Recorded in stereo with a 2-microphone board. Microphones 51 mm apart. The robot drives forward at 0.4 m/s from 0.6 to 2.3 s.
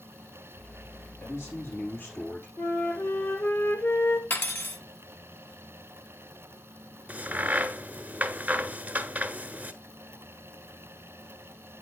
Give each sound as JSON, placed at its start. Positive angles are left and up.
{"t": 1.2, "sound": "a man speaking", "side_deg": 55, "distance_m": 5.0}
{"t": 2.6, "sound": "a flute", "side_deg": 40, "distance_m": 1.9}
{"t": 4.3, "sound": "cutlery clinking", "side_deg": 45, "distance_m": 1.1}
{"t": 7.1, "sound": "a crack", "side_deg": -30, "distance_m": 0.7}